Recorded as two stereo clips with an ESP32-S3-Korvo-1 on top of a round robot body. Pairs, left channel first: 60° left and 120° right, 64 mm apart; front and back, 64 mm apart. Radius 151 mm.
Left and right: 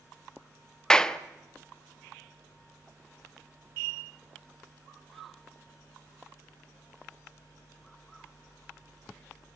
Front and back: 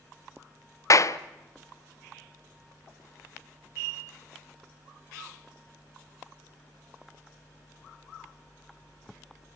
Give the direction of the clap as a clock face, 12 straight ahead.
1 o'clock.